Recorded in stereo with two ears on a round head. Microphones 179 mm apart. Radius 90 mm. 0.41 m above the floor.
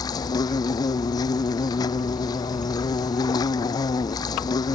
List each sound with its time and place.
0.0 s an insect: 20° left (ahead or behind)